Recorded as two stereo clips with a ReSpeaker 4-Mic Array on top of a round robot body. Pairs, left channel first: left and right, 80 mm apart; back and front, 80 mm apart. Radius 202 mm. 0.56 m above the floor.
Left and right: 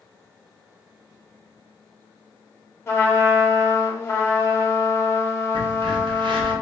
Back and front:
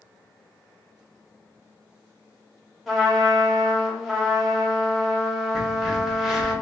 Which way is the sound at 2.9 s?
85° left.